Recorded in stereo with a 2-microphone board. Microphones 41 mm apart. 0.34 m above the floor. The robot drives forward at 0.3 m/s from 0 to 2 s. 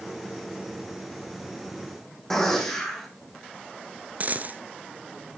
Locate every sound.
2.3 s a gunshot: 10° left (ahead or behind), 4.5 m
4.2 s a dropped coin: 45° right (ahead or behind), 0.7 m